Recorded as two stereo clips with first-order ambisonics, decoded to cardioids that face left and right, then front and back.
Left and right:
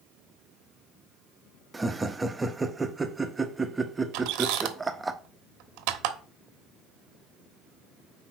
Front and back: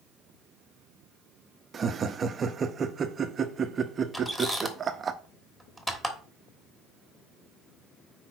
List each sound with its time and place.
1.7 s laughter: 155° right, 0.7 m
4.1 s a squeak: 80° right, 1.1 m